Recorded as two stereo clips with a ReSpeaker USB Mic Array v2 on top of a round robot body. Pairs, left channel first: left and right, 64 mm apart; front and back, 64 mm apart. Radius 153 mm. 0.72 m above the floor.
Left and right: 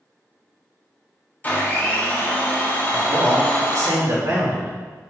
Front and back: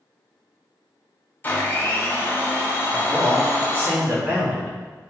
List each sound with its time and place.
1.4 s a blender: 40° left, 0.9 m
2.9 s a man speaking: 130° right, 1.5 m